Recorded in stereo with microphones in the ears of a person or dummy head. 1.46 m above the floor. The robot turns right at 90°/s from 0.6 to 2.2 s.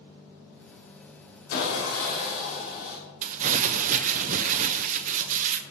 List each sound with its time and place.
1.5 s sawing: 75° left, 5 m; by 3.0 s 135° left, 5 m
3.2 s crumpling: 45° right (ahead or behind), 0.9 m